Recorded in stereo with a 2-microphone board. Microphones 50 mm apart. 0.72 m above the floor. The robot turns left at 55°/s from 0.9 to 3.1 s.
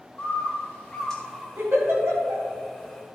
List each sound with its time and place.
0.2 s a bird: 25° left, 2 m; by 1.5 s 5° right, 2 m
1.6 s a giggle: 45° right (ahead or behind), 3 m; by 2.4 s 80° right, 3 m